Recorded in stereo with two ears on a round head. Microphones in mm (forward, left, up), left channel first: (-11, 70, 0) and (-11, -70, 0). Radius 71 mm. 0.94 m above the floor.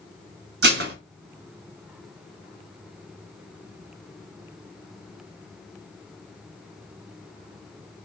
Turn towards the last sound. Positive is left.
turn(degrees=-75)  # may be behind; listen again after turning